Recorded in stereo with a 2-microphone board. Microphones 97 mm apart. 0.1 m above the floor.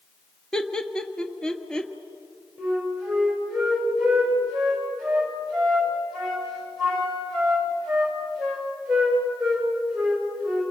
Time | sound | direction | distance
0.5 | laughter | 5° left (ahead or behind) | 1.4 m
2.6 | a flute | centre (ahead or behind) | 7 m